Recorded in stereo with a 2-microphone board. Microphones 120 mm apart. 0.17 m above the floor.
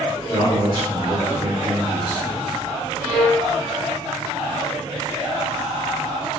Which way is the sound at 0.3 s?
30° right (ahead or behind).